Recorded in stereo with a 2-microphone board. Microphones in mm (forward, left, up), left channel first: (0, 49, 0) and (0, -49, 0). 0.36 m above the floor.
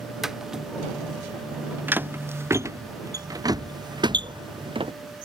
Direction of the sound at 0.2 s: 5° right (ahead or behind).